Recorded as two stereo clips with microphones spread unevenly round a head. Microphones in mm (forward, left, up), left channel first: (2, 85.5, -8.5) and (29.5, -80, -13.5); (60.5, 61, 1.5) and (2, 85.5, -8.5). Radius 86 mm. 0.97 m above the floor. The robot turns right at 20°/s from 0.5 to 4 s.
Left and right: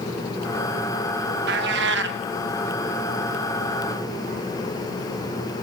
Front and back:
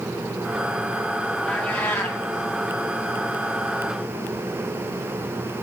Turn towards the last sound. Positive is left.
turn(degrees=-50)